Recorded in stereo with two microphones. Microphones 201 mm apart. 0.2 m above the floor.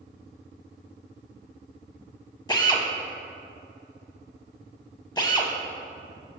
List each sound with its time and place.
2.5 s a drill: 20° left (ahead or behind), 0.7 m